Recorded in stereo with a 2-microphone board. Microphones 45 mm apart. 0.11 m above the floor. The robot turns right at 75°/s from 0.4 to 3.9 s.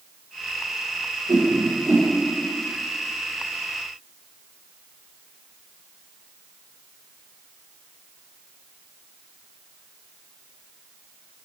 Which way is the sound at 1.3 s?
75° right (ahead or behind).